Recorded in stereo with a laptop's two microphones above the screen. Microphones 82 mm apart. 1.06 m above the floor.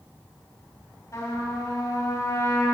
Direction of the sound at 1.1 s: 40° left (ahead or behind).